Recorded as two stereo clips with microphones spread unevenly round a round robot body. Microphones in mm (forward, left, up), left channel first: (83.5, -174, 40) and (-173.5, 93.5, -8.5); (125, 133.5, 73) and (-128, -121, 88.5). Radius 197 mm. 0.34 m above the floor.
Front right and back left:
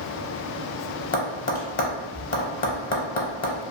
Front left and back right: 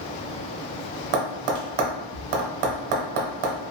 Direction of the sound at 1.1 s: 115° right.